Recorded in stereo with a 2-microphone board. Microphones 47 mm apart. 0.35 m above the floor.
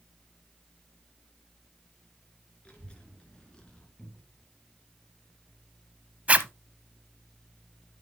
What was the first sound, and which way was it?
A child speaking, 25° left (ahead or behind).